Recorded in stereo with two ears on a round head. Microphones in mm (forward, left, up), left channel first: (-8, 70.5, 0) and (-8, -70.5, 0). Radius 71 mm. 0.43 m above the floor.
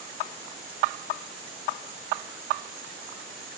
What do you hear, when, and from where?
Only background noise.